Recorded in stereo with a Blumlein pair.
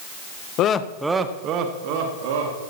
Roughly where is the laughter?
Ahead left.